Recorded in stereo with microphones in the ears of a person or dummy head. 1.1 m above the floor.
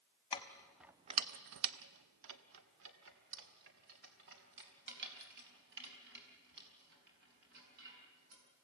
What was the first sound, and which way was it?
Keys jangling, 25° left (ahead or behind).